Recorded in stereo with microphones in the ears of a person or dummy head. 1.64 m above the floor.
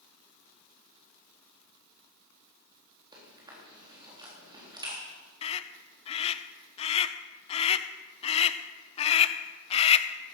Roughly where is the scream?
Left.